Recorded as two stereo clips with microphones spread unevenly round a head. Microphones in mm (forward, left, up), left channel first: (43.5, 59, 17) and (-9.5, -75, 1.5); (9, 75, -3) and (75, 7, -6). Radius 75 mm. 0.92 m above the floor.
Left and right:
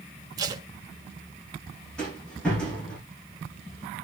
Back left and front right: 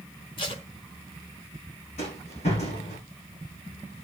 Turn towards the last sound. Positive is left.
turn(degrees=150)